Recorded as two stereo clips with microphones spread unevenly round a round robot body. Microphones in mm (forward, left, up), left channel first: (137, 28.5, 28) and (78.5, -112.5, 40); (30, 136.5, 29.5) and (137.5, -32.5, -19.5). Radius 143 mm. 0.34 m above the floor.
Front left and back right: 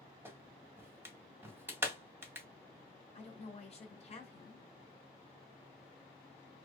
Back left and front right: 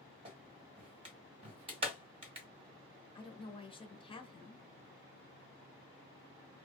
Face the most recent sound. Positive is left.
turn(degrees=50)